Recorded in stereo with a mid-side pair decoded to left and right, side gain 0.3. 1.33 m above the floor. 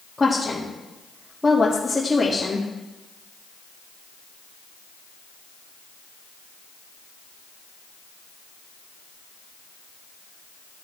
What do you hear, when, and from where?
0.2 s a woman speaking: 20° left, 3 m